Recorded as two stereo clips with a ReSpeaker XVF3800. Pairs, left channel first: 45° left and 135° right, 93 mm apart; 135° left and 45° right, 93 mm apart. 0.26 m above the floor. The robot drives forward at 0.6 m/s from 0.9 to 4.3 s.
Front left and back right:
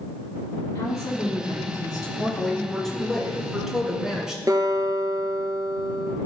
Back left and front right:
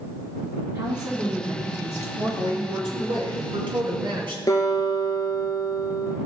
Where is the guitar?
Straight behind, 1.9 m.